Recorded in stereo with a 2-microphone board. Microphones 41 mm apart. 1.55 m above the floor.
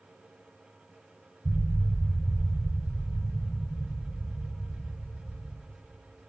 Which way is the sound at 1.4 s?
50° left (ahead or behind).